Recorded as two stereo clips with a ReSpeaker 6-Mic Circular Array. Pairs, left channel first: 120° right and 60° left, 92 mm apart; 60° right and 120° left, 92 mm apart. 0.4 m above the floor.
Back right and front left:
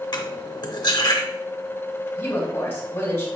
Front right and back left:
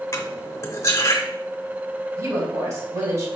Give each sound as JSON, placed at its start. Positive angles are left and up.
{"t": 0.1, "sound": "cutlery clinking", "azimuth_deg": -105, "distance_m": 0.7}
{"t": 2.2, "sound": "a woman speaking", "azimuth_deg": 175, "distance_m": 2.0}